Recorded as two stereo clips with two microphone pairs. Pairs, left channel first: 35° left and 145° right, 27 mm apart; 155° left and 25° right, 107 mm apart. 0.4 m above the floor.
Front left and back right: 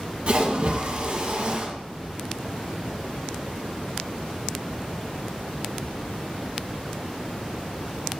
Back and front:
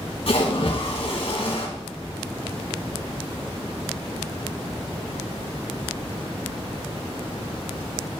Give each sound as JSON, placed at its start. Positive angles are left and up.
{"t": 0.3, "sound": "a splash", "azimuth_deg": 180, "distance_m": 2.0}